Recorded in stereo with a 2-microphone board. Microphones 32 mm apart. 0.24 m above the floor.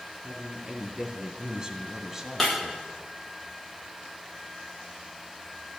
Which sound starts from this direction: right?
A man speaking, at 0.2 s.